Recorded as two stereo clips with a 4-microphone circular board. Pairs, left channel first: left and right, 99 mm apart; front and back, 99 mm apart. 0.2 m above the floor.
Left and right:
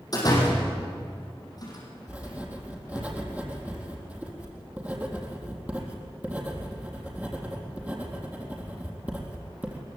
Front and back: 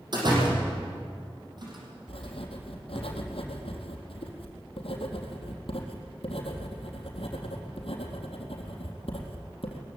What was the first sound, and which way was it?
A door slam, 140° left.